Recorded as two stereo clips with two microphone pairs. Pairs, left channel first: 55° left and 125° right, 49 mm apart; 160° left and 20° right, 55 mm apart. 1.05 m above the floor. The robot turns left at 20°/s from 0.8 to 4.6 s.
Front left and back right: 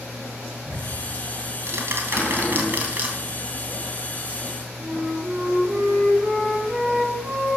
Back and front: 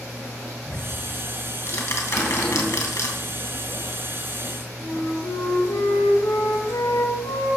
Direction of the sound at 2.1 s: 110° left.